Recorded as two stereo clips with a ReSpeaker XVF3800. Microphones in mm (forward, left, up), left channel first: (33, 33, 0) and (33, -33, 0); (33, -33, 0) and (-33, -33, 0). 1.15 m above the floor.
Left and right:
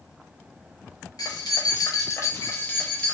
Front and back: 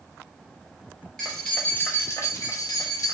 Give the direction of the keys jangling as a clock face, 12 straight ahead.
9 o'clock.